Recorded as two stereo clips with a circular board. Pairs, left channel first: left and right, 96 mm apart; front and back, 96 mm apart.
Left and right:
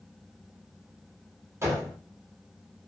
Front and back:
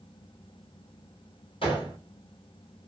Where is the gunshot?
25° right, 1.4 m.